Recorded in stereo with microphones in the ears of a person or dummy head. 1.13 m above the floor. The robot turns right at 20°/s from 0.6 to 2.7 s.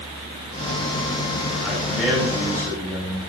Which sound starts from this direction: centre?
A man speaking, at 1.6 s.